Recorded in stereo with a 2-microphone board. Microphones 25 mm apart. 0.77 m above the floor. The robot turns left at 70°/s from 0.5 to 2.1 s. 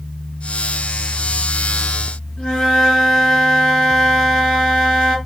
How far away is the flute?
About 1.9 m.